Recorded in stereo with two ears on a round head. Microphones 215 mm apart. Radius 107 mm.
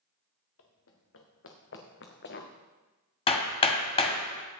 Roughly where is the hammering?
Left.